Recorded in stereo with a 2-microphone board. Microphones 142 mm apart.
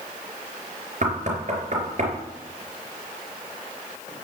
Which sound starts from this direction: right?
Knocking, at 1.0 s.